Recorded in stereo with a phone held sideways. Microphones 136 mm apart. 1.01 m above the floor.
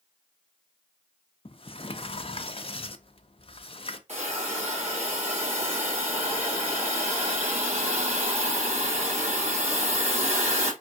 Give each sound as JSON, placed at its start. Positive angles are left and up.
{"t": 1.4, "sound": "a sliding door", "side_deg": 45, "distance_m": 0.5}
{"t": 4.1, "sound": "a hiss", "side_deg": -60, "distance_m": 3.0}